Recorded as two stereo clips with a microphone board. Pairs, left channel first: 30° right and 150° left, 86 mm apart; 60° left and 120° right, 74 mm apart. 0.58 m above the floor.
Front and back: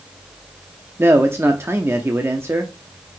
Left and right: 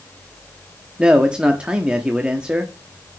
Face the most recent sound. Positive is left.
turn(degrees=175)